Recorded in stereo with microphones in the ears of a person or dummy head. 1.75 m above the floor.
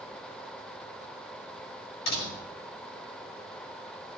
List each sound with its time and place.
2.1 s a door slam: 70° left (ahead or behind), 6 m